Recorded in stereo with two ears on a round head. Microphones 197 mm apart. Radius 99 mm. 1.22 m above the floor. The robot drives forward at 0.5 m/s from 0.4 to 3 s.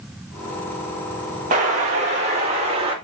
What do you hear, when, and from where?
1.5 s an explosion: 35° right (ahead or behind), 2.0 m; by 3.0 s 25° right (ahead or behind), 2.5 m